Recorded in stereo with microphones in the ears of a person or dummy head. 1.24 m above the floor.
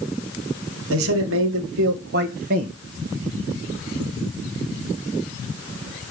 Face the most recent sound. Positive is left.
turn(degrees=-35)  # may be behind; listen again after turning